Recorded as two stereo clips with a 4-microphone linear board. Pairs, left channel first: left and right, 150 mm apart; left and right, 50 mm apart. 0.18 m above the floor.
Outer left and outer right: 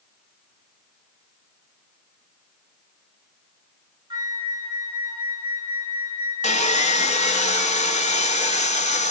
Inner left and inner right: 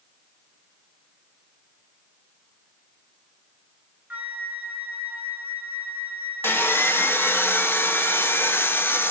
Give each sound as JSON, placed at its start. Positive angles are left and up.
{"t": 4.1, "sound": "a flute", "side_deg": -30, "distance_m": 0.9}
{"t": 6.4, "sound": "sawing", "side_deg": 50, "distance_m": 0.5}